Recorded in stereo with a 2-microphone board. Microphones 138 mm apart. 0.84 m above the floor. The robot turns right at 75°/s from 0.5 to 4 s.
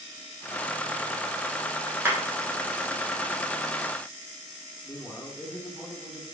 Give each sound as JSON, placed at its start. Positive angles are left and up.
{"t": 2.0, "sound": "a clap", "side_deg": -20, "distance_m": 2.5}
{"t": 4.8, "sound": "a man speaking", "side_deg": 10, "distance_m": 2.0}